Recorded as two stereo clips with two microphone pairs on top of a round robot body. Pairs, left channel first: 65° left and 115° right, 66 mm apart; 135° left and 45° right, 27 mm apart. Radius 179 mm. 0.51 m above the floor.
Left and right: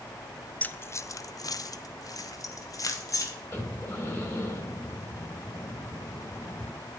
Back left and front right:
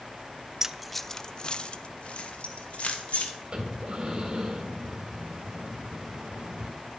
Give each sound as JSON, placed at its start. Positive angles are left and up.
{"t": 0.6, "sound": "keys jangling", "azimuth_deg": 0, "distance_m": 0.6}
{"t": 3.5, "sound": "breathing", "azimuth_deg": 10, "distance_m": 2.5}